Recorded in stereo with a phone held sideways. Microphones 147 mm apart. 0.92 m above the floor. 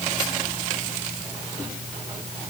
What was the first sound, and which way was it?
Only background noise.